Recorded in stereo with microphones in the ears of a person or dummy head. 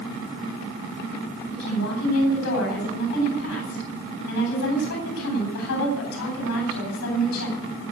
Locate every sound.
1.5 s a woman speaking: 60° left (ahead or behind), 10 m